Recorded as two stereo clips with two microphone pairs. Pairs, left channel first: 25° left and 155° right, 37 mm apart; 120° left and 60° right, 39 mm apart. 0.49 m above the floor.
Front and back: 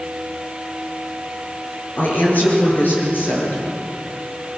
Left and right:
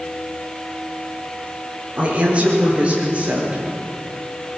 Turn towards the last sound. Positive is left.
turn(degrees=-5)